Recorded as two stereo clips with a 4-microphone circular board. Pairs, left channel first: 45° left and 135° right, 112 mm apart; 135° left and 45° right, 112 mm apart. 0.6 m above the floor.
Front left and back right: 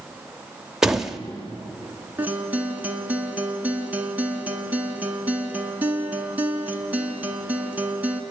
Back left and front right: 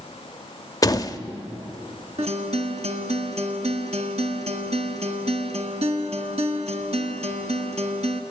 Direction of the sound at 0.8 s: 145° left.